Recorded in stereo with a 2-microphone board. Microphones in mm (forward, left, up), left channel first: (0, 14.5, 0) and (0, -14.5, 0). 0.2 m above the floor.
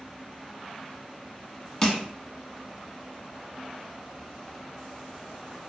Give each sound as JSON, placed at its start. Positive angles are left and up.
{"t": 1.8, "sound": "crushing", "side_deg": 20, "distance_m": 0.5}